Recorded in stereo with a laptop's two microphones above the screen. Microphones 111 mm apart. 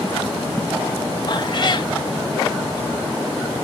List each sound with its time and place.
1.3 s a cat meowing: 45° left (ahead or behind), 0.8 m